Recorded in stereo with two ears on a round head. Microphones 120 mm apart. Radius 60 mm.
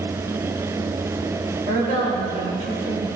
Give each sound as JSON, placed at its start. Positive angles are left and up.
{"t": 1.7, "sound": "a woman speaking", "side_deg": -55, "distance_m": 3.0}